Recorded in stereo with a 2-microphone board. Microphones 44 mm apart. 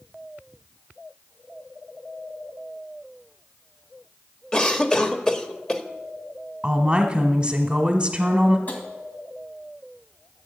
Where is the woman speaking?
20° right (ahead or behind), 1.2 m.